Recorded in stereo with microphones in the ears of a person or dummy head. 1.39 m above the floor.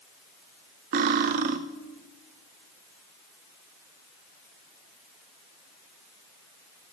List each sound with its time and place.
0.9 s cutlery clinking: 40° right (ahead or behind), 0.5 m